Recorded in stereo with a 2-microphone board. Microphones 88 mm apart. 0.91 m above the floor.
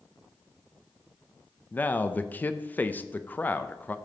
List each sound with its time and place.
1.7 s a man speaking: 20° left (ahead or behind), 0.5 m